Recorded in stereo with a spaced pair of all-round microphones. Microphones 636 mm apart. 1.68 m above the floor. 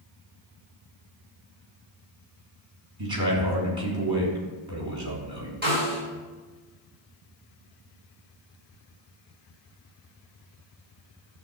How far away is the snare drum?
About 5.5 m.